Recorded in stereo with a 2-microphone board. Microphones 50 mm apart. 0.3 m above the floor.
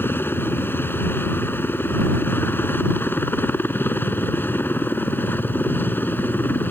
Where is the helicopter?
45° left (ahead or behind); by 6.7 s 40° left (ahead or behind).